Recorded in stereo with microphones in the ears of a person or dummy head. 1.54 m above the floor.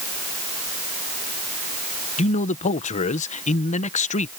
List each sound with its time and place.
2.2 s a man speaking: 35° left (ahead or behind)